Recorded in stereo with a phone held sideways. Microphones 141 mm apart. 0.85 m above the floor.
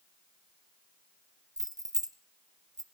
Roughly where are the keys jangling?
Right.